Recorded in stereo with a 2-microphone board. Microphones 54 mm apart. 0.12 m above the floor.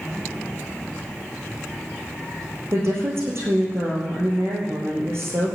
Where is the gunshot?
I don't hear a gunshot.